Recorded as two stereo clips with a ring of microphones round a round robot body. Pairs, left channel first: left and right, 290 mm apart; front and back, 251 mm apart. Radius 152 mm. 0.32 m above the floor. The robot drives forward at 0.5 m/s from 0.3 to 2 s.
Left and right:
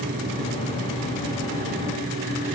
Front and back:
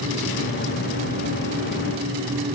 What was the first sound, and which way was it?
Only background noise.